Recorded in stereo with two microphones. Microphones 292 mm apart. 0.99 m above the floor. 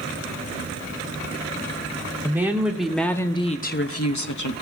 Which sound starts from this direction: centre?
A woman speaking, at 2.2 s.